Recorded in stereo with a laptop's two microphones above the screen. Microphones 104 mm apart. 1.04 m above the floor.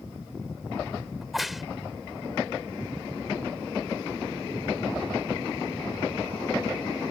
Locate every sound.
1.2 s a crack: centre (ahead or behind)